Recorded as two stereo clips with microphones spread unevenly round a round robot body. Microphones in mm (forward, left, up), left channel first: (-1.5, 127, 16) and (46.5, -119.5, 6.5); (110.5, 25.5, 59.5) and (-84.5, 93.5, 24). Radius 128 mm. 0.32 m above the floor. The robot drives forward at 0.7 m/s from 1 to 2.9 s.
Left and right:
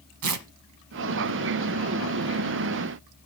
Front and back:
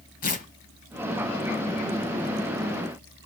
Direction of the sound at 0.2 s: 80° right.